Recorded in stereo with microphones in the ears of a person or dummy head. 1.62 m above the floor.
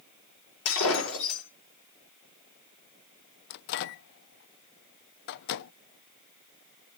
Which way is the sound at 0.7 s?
80° left.